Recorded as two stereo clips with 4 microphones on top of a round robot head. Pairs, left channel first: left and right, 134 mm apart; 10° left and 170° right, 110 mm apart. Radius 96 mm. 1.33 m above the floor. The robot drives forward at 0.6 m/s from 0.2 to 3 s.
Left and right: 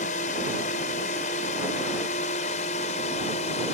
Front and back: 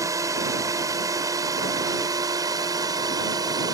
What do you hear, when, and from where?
0.0 s a drone: 130° left; by 3.8 s 135° left